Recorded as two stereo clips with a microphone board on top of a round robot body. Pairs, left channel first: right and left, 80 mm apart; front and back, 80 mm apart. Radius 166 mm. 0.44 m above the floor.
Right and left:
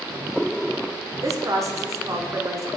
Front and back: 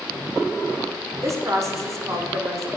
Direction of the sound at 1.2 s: 135° left.